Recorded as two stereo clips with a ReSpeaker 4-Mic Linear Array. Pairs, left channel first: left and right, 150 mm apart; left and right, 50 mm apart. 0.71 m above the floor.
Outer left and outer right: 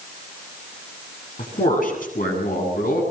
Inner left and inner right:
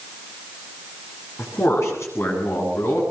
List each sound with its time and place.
1.4 s a man speaking: 55° left (ahead or behind), 8.5 m; by 3.0 s 60° left (ahead or behind), 8.5 m